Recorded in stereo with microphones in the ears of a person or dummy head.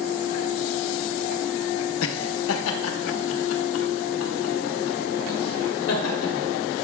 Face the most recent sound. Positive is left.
turn(degrees=80)